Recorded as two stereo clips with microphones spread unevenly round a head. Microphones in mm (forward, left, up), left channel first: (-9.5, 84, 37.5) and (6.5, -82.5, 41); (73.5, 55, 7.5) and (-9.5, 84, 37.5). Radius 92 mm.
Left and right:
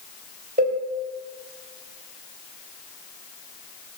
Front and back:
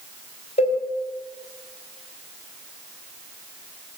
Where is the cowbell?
40° right, 3 m.